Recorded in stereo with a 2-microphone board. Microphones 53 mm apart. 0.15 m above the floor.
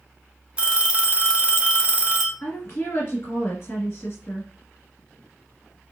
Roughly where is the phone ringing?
Right.